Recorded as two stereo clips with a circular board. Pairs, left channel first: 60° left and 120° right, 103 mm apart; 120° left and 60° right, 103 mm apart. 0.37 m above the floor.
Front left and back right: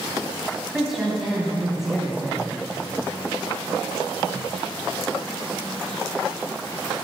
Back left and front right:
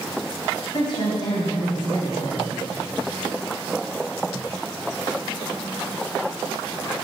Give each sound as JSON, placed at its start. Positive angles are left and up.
{"t": 0.7, "sound": "a woman speaking", "azimuth_deg": 155, "distance_m": 3.0}